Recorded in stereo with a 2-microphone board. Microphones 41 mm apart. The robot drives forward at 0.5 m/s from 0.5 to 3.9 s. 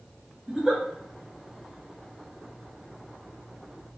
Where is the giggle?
10° right (ahead or behind), 1.4 m.